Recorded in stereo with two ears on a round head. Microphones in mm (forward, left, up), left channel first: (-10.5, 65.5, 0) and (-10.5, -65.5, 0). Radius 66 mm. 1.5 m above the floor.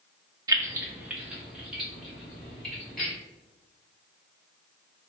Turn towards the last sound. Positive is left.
turn(degrees=5)  # may be behind; listen again after turning